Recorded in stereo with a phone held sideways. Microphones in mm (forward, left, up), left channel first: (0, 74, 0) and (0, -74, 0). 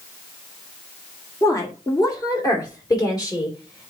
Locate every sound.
1.4 s a woman speaking: 20° left (ahead or behind), 1.6 m; by 3.9 s 30° left (ahead or behind), 3 m